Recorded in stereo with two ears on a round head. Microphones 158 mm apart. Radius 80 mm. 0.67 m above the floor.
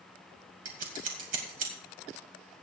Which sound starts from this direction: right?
Scissors, at 0.7 s.